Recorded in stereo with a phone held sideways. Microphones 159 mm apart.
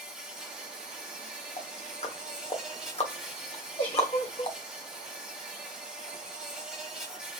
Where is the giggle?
45° left (ahead or behind), 2 m.